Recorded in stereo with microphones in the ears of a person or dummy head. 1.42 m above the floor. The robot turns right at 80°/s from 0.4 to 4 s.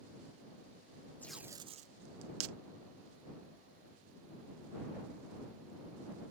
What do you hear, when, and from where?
1.2 s tape being pulled: 5° left (ahead or behind); by 2.5 s 75° right (ahead or behind)